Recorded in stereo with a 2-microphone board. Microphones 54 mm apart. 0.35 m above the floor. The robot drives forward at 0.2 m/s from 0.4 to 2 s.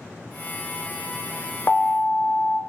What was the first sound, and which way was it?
An alarm, 30° left (ahead or behind).